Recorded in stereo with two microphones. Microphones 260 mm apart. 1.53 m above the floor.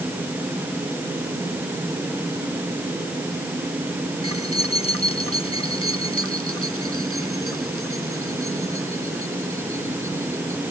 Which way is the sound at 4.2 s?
70° right (ahead or behind).